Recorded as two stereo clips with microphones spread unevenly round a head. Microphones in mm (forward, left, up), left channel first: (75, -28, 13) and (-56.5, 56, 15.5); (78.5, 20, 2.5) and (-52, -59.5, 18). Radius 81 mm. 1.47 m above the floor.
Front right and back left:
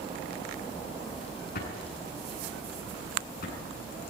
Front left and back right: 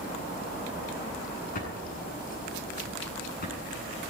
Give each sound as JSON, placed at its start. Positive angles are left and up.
{"t": 1.6, "sound": "a drawer", "azimuth_deg": 0, "distance_m": 8.5}